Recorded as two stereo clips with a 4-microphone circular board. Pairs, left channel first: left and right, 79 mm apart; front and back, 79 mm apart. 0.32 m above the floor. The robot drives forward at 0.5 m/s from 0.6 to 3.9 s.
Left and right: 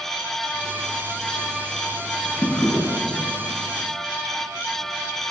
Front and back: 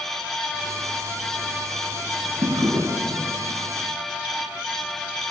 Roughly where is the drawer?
Behind left.